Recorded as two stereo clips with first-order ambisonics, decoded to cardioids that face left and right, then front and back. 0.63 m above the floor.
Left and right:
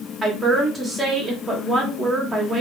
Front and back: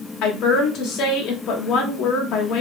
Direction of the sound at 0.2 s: 10° right.